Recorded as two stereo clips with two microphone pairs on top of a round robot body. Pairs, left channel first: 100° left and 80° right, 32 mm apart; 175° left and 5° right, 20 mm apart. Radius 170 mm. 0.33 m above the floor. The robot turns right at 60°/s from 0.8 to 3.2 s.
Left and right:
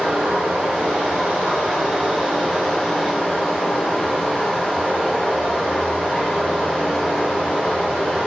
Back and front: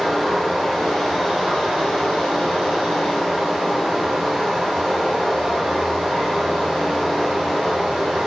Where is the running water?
95° right, 1.2 m; by 8.3 s 50° left, 1.2 m.